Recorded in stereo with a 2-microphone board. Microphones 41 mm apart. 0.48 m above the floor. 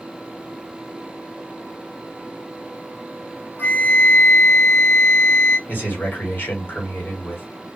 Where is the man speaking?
55° left (ahead or behind), 1.6 m.